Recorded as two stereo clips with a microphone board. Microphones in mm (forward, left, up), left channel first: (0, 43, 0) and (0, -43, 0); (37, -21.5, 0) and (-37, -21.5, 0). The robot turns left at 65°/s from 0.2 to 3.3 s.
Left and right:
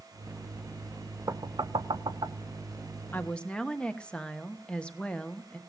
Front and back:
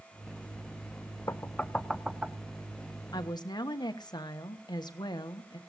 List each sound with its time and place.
1.3 s knocking: 45° right, 0.6 m; by 2.4 s 115° right, 0.6 m
3.1 s a woman speaking: 25° left, 1.2 m; by 5.6 s 10° left, 1.2 m